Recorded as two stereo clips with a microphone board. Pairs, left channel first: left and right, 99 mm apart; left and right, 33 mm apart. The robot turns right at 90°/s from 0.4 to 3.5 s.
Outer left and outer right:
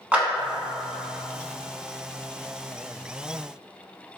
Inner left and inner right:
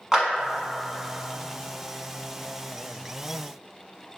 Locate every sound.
0.1 s a clap: 15° right (ahead or behind), 1.0 m